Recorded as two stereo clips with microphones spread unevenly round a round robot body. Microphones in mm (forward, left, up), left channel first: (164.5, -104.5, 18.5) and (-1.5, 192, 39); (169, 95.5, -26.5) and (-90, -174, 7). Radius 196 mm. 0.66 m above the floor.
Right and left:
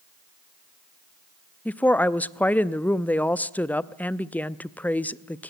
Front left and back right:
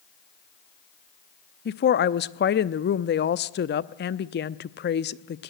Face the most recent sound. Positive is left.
turn(degrees=15)